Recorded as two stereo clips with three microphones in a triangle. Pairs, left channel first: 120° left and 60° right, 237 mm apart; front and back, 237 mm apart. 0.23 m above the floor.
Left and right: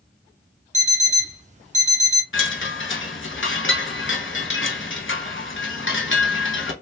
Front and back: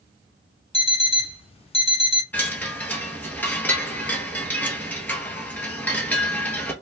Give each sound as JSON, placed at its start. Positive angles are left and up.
{"t": 0.7, "sound": "an alarm clock", "azimuth_deg": -40, "distance_m": 0.6}
{"t": 2.3, "sound": "a chime", "azimuth_deg": 85, "distance_m": 0.7}